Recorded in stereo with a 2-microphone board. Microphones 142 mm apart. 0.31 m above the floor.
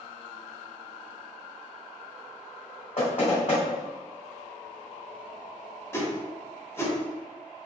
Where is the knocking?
50° left (ahead or behind), 1.4 m.